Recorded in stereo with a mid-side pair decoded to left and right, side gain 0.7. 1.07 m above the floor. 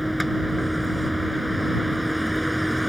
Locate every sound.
0.0 s a vehicle: straight ahead